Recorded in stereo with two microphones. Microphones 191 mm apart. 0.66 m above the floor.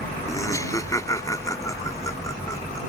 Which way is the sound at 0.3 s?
15° left (ahead or behind).